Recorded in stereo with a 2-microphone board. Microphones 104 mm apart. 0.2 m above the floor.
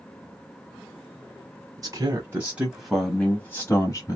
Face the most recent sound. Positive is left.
turn(degrees=35)  # may be behind; listen again after turning